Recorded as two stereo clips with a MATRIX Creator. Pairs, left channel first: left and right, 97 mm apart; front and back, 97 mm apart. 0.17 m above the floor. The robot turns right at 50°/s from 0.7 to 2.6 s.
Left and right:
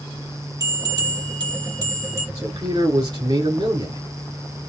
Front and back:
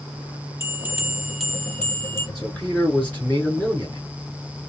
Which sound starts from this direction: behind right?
A bell, at 0.6 s.